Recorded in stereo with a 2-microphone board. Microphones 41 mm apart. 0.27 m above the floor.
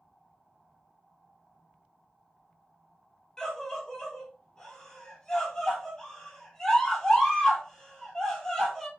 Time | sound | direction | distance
3.4 | a scream | 15° left (ahead or behind) | 3 m